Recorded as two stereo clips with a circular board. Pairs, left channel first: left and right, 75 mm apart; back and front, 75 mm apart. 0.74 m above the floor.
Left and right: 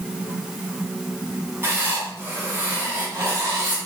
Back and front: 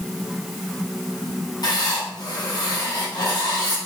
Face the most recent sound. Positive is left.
turn(degrees=-145)